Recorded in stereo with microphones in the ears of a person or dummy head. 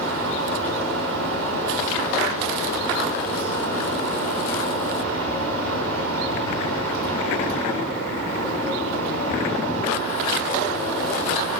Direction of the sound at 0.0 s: 85° right.